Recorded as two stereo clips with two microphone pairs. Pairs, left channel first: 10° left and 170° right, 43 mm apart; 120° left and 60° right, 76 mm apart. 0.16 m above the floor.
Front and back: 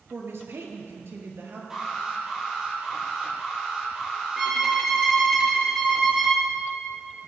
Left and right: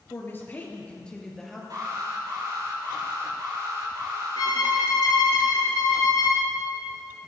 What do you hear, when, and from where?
0.1 s a woman speaking: 170° left, 3 m; by 1.6 s 150° right, 3 m
1.7 s an alarm: 95° right, 6.5 m
4.4 s a violin: 110° left, 3.5 m